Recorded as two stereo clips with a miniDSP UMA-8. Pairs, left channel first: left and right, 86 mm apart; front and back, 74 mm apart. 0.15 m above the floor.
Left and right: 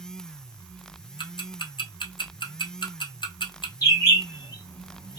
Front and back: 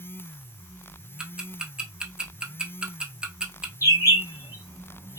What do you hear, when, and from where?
1.2 s ticking: 105° left, 0.6 m
3.8 s a bird: 45° left, 1.1 m